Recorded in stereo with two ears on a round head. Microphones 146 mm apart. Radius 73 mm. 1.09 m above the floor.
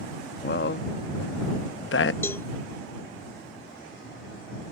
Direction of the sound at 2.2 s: 15° left (ahead or behind).